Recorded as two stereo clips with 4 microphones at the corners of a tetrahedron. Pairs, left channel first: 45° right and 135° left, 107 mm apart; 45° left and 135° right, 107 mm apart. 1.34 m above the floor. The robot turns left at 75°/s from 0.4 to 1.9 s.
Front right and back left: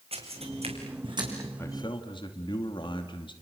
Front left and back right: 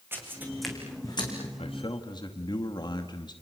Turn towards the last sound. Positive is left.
turn(degrees=0)